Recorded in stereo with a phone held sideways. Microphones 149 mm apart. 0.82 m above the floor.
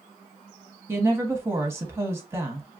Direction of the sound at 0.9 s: 15° right (ahead or behind).